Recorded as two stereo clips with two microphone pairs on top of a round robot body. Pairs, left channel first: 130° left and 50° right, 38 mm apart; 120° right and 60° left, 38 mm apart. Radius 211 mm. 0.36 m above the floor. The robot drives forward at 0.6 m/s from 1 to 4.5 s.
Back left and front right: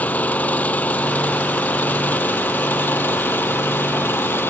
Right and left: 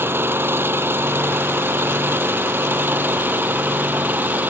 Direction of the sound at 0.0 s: 80° left.